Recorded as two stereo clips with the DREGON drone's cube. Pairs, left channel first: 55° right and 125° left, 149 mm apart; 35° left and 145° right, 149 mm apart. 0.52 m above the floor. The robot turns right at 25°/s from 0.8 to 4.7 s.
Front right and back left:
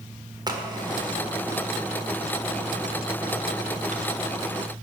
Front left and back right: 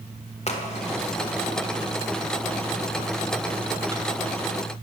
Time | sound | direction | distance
0.5 | a crack | 70° left | 1.6 m